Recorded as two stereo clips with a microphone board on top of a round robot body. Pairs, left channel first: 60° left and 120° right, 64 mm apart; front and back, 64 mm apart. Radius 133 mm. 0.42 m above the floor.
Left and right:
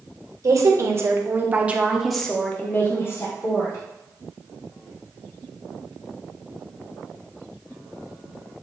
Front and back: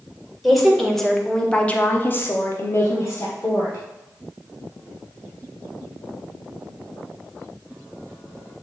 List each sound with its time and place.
0.4 s a woman speaking: 90° right, 1.9 m; by 3.8 s 50° left, 1.9 m